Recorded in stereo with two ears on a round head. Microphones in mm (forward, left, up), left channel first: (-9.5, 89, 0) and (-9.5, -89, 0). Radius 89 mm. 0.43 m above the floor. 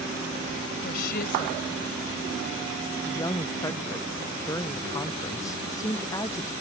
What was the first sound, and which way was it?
A woman speaking, 50° left (ahead or behind).